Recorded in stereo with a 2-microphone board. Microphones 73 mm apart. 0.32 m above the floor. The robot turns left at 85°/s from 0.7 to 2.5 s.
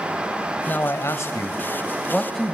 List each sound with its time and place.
0.7 s a man speaking: 140° left, 1.4 m; by 2.5 s 15° right, 1.4 m